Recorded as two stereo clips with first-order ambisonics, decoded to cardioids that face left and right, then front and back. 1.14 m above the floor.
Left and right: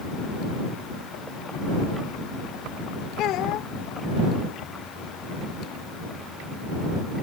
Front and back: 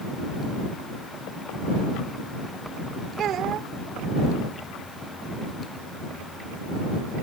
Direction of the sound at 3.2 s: 130° left.